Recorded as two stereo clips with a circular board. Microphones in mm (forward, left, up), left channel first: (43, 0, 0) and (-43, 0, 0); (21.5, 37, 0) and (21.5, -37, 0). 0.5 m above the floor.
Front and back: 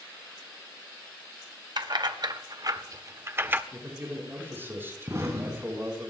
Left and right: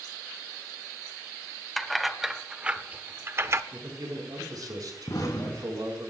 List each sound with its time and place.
1.8 s keys jangling: straight behind, 1.3 m; by 3.6 s 120° right, 1.0 m
3.7 s a man speaking: 120° right, 5.5 m
5.1 s an explosion: 125° left, 3.5 m